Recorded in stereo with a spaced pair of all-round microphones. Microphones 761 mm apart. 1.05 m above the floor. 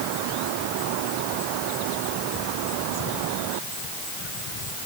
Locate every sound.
Only background noise.